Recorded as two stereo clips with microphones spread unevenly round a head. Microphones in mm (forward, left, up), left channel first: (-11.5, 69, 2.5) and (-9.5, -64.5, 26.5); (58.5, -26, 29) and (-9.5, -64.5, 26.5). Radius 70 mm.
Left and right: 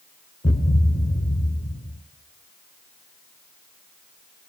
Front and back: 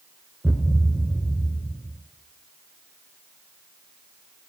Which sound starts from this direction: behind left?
A thud, at 0.4 s.